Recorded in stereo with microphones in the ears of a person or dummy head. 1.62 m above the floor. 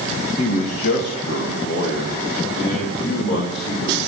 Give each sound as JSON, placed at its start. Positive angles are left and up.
{"t": 0.4, "sound": "a man speaking", "side_deg": 40, "distance_m": 1.9}